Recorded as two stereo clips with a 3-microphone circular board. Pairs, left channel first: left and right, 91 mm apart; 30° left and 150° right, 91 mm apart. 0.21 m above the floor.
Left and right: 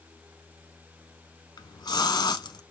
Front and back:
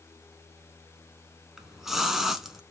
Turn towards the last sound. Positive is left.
turn(degrees=125)